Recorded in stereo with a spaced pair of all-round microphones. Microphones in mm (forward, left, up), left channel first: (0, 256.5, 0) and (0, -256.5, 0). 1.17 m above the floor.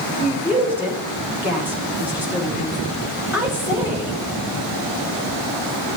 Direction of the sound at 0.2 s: 5° right (ahead or behind).